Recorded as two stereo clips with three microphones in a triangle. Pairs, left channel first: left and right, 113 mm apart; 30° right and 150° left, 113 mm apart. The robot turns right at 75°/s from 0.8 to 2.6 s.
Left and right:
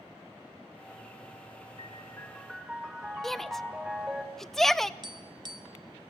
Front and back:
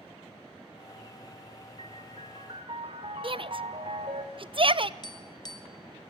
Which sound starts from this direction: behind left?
A piano, at 1.8 s.